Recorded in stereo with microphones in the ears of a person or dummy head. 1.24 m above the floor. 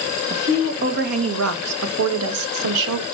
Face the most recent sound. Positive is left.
turn(degrees=-70)  # may be behind; listen again after turning